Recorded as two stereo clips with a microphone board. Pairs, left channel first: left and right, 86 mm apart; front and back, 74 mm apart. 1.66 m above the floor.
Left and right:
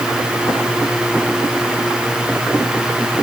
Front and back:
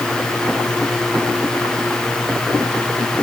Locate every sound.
Only background noise.